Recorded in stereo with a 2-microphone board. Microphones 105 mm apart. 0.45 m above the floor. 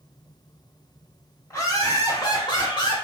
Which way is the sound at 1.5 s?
30° left (ahead or behind).